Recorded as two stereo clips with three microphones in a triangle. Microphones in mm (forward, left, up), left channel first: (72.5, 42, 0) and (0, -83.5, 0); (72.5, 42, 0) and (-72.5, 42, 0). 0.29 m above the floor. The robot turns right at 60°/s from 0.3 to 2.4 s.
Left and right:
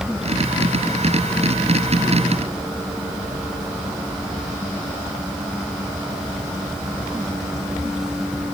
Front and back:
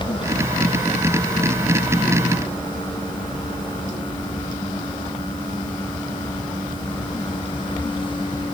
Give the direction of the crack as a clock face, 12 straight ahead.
I don't hear a crack.